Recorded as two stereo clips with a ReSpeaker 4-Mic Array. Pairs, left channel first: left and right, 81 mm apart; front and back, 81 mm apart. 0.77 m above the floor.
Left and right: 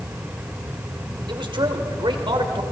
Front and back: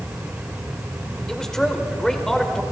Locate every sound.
1.3 s a man speaking: 85° right, 2.5 m